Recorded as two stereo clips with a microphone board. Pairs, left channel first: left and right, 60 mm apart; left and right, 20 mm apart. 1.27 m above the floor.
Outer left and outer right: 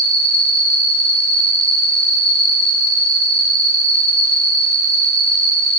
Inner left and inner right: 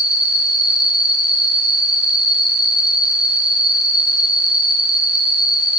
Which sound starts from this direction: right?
An insect, at 0.0 s.